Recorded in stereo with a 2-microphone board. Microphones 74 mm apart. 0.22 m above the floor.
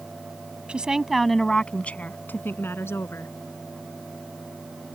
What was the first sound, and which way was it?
A woman speaking, 15° right (ahead or behind).